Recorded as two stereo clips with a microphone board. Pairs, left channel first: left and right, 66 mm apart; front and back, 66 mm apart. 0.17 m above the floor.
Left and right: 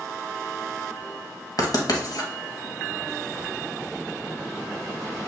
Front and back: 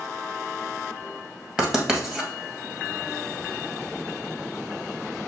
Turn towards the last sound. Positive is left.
turn(degrees=100)